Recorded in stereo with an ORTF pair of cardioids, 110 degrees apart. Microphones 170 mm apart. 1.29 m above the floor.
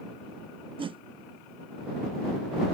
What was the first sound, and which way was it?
A whoosh, 30° right.